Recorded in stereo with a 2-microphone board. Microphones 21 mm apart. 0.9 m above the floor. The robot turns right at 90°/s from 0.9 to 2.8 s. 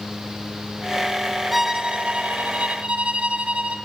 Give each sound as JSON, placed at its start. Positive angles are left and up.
{"t": 1.5, "sound": "a violin", "azimuth_deg": -175, "distance_m": 0.6}